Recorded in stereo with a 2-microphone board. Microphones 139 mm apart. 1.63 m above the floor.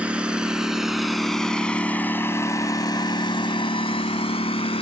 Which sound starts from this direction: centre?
A lawn mower, at 0.0 s.